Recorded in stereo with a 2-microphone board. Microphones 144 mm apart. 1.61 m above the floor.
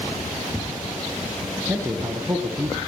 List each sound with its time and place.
1.7 s a man speaking: 20° right (ahead or behind), 1.3 m